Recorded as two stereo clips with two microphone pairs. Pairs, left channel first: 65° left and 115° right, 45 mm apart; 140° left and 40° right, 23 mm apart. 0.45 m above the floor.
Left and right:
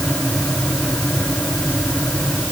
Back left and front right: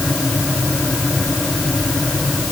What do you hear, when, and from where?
Only background noise.